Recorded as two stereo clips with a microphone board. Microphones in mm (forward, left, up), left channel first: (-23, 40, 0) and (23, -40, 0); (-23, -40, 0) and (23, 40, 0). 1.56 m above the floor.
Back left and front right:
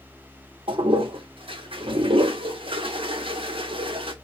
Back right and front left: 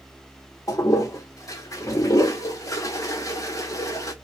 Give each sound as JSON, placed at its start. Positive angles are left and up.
{"t": 0.7, "sound": "a toilet flushing", "azimuth_deg": -70, "distance_m": 0.6}